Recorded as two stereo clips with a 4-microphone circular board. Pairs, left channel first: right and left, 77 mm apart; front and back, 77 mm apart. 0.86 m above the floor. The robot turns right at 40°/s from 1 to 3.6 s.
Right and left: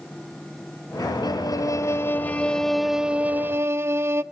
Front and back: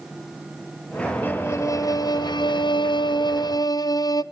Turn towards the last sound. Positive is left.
turn(degrees=35)